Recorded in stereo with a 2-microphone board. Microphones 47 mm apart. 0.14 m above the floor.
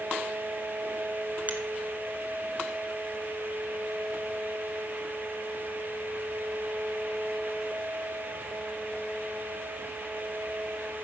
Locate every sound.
1.5 s a finger snap: 40° right (ahead or behind), 1.8 m